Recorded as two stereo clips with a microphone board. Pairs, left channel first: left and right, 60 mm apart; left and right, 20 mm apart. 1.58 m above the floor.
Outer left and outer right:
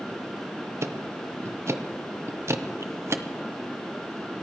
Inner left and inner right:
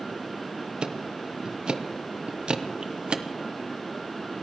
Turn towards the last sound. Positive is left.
turn(degrees=-50)  # may be behind; listen again after turning